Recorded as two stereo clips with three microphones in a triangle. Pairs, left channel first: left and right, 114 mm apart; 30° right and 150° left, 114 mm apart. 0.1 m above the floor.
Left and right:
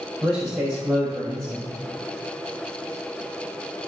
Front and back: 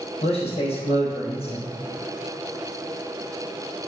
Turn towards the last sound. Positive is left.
turn(degrees=-5)